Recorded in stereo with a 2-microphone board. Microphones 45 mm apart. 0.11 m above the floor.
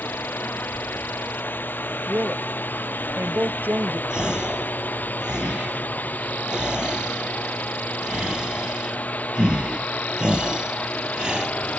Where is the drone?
50° left (ahead or behind); by 11.8 s 35° left (ahead or behind).